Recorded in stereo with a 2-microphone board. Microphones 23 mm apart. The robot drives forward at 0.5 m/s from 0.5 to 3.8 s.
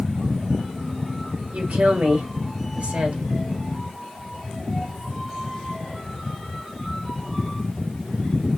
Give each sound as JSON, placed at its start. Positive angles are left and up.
{"t": 1.5, "sound": "a woman speaking", "side_deg": -80, "distance_m": 1.6}